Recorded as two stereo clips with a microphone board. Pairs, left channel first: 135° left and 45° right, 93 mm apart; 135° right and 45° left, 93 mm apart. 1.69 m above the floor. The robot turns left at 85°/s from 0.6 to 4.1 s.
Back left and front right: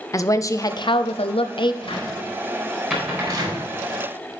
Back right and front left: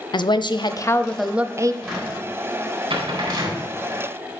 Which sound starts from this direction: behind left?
A cupboard door, at 1.8 s.